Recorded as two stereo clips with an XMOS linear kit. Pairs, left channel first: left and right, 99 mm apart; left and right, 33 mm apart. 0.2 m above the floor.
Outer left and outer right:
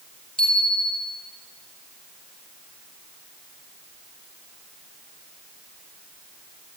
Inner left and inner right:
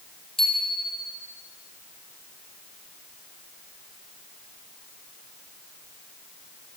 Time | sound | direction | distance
0.4 | a bicycle bell | 10° left (ahead or behind) | 4.5 m